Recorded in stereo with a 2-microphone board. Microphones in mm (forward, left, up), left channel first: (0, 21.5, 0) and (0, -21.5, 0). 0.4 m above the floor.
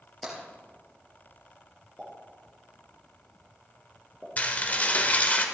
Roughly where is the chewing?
I don't hear chewing.